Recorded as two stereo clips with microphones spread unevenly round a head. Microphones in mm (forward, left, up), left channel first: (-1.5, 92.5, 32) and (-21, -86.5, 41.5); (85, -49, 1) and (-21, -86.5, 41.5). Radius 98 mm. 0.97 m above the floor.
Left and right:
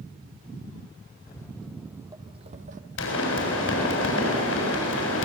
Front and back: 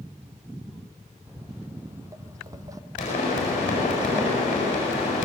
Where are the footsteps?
145° left, 1.2 m; by 2.8 s 130° right, 1.6 m.